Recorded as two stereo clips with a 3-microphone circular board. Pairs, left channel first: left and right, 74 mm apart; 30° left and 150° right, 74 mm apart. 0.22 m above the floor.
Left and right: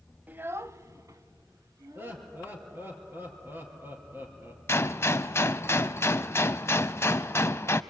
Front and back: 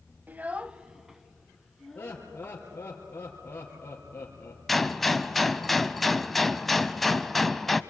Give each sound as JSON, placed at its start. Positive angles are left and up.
{"t": 0.3, "sound": "a child speaking", "azimuth_deg": -120, "distance_m": 0.7}
{"t": 1.9, "sound": "laughter", "azimuth_deg": -35, "distance_m": 4.0}
{"t": 4.7, "sound": "a gunshot", "azimuth_deg": 115, "distance_m": 0.6}